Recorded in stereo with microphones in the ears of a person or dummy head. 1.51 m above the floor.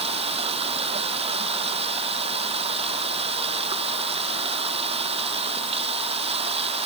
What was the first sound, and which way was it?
Running water, 30° right (ahead or behind).